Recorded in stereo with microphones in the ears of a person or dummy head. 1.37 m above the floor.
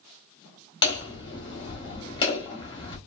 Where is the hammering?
25° left (ahead or behind), 1.2 m.